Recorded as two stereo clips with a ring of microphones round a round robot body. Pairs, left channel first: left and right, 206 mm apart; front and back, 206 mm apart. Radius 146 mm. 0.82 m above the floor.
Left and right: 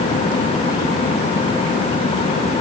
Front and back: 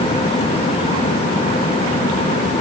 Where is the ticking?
No ticking in this recording.